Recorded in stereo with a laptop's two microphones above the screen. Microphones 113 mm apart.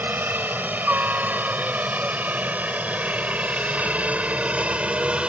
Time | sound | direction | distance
0.0 | a helicopter | 15° right (ahead or behind) | ?